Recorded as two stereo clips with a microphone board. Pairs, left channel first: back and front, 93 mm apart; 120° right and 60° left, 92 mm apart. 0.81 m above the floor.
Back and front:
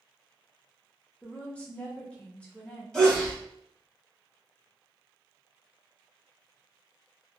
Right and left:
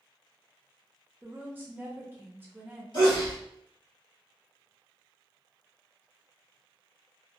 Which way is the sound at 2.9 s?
100° right.